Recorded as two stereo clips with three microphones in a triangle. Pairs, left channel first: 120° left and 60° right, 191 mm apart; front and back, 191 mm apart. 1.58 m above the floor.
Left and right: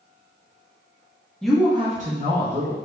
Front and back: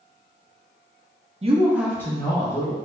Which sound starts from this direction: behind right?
A woman speaking, at 1.4 s.